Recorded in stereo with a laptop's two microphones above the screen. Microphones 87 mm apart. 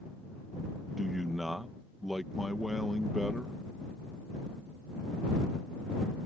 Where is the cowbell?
I don't hear a cowbell.